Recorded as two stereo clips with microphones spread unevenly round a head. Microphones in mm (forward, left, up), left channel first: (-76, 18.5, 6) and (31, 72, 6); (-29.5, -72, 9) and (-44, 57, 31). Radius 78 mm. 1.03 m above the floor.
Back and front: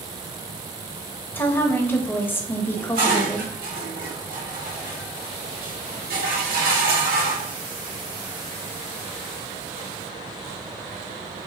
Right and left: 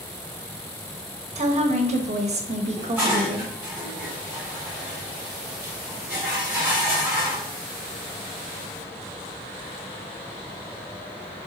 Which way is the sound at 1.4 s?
135° left.